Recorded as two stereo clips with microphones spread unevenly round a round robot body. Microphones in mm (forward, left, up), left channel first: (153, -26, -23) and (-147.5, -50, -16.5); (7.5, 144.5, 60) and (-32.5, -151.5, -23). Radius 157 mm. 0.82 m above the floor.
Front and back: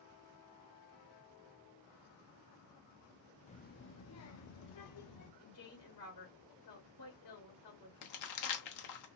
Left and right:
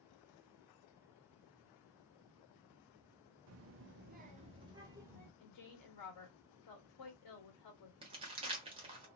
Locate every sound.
3.5 s a child speaking: 65° right, 0.7 m; by 5.3 s 15° right, 1.5 m
5.4 s a woman speaking: 50° left, 1.3 m
8.0 s crumpling: 20° right, 1.0 m